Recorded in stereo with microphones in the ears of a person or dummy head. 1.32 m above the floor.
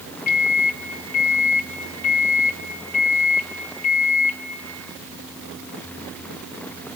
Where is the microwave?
45° left (ahead or behind), 1.9 m.